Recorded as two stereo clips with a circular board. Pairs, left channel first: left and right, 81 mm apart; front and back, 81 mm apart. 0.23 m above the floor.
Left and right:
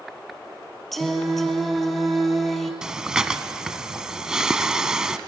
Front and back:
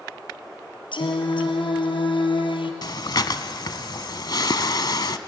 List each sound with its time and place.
0.9 s singing: straight ahead, 2.5 m
2.8 s breathing: 10° right, 1.0 m